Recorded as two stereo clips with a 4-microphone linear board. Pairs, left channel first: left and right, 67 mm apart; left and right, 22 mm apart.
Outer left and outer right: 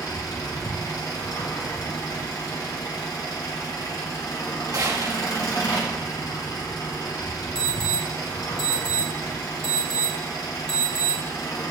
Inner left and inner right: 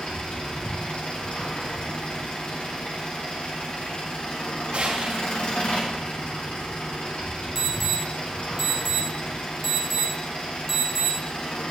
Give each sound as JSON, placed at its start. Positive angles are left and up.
{"t": 0.0, "sound": "an engine running", "side_deg": 70, "distance_m": 2.5}
{"t": 4.7, "sound": "a gunshot", "side_deg": -60, "distance_m": 1.7}
{"t": 7.5, "sound": "an alarm", "side_deg": 10, "distance_m": 2.5}